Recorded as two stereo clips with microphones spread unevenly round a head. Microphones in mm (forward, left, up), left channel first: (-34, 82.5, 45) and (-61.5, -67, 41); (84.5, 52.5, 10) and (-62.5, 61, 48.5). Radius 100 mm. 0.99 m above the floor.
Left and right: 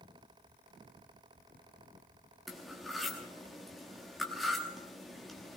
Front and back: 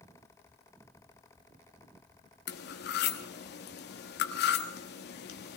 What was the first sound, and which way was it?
Cutlery clinking, 10° right.